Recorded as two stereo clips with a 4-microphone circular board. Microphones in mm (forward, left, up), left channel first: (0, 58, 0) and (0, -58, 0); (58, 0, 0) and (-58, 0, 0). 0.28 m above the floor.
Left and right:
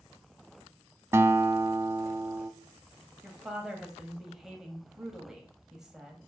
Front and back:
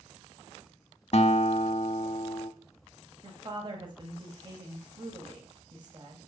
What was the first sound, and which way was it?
A guitar, 25° right.